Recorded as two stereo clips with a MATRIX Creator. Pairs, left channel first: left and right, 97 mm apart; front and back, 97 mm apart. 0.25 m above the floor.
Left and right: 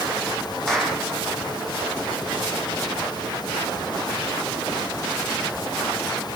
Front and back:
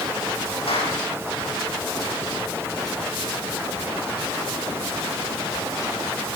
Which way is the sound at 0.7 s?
5° left.